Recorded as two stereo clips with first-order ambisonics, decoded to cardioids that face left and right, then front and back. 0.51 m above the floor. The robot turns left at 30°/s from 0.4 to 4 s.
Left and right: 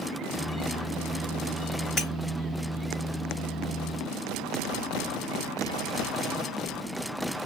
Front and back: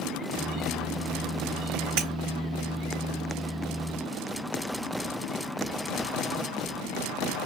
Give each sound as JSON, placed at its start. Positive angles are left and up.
{"t": 2.0, "sound": "breaking glass", "azimuth_deg": 155, "distance_m": 2.5}